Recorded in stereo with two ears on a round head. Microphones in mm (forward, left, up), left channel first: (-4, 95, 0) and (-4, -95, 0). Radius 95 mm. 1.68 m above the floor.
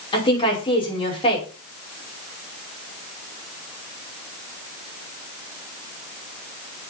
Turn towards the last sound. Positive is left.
turn(degrees=25)  # may be behind; listen again after turning